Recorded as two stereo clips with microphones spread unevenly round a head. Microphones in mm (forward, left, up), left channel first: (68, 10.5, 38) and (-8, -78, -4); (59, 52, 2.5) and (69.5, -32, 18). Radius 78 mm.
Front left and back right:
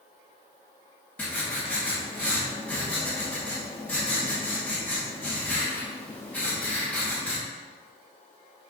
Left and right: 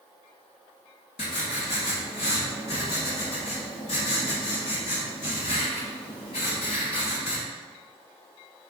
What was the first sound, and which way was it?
Writing, 125° left.